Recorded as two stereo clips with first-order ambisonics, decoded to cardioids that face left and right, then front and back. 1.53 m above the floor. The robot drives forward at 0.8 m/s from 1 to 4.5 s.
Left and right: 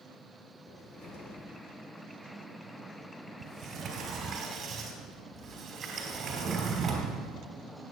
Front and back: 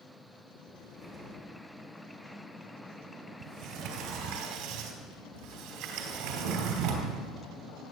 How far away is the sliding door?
About 2.5 m.